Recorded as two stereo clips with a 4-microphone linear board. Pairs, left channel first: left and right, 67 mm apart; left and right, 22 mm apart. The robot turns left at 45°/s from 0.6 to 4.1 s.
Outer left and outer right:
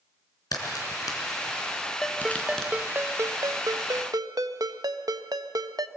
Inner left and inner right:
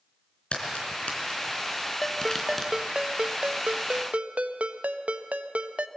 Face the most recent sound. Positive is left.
turn(degrees=-85)